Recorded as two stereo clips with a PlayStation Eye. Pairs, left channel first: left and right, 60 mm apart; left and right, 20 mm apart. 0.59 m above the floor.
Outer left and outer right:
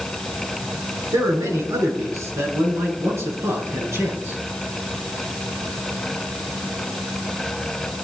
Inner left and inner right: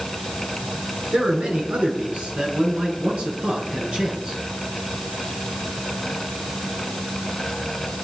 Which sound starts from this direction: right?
A man speaking, at 1.1 s.